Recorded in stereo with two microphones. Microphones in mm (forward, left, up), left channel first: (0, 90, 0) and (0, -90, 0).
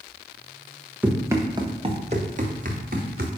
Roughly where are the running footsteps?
Centre.